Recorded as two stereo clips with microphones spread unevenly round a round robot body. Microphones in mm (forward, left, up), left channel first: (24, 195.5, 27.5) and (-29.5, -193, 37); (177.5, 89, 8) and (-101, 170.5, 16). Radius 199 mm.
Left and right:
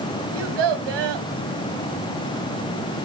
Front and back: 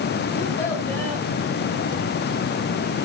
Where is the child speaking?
100° right, 2 m.